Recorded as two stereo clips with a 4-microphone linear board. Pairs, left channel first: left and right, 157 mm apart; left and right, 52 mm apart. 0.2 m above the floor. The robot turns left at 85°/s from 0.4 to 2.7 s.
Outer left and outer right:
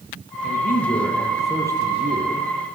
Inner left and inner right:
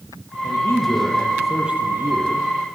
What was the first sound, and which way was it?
A man speaking, 85° left.